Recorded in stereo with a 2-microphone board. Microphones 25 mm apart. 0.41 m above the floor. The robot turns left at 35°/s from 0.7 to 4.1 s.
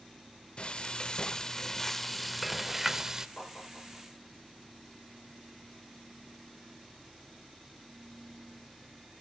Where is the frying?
55° left, 0.7 m; by 3.3 s 30° right, 0.7 m.